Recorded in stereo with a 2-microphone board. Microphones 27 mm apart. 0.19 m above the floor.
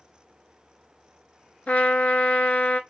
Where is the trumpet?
60° left (ahead or behind), 0.8 m.